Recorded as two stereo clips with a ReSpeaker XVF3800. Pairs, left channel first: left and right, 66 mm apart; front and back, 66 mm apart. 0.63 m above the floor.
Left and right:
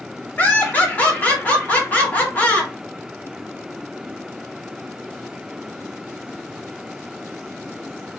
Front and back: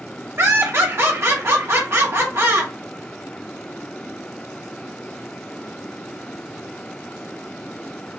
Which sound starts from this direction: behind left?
Laughter, at 0.4 s.